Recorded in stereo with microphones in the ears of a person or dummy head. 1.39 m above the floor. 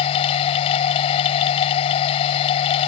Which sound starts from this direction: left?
A machine running, at 0.0 s.